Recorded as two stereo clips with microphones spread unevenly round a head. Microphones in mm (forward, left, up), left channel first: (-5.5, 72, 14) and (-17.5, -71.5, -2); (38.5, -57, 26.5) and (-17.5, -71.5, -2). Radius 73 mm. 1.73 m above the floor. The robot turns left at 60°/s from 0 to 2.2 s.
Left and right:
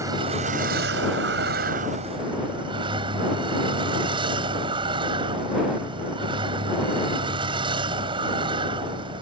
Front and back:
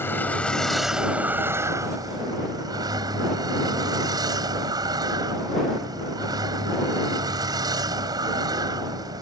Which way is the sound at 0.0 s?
20° right.